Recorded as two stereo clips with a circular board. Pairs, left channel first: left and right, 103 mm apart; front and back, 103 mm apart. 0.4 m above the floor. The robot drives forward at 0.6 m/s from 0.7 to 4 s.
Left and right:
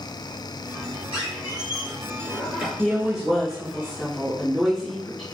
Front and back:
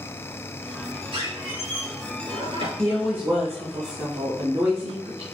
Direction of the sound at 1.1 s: 165° right.